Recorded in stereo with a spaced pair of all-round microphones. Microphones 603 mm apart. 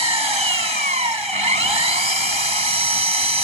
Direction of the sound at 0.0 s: 50° right (ahead or behind).